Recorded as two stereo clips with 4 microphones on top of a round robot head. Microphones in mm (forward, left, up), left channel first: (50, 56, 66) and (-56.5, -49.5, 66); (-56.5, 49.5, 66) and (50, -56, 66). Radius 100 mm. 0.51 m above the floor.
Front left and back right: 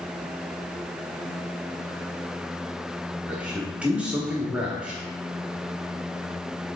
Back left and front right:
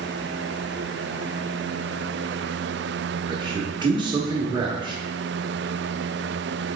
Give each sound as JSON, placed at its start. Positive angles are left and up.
{"t": 3.3, "sound": "a man speaking", "azimuth_deg": -60, "distance_m": 1.3}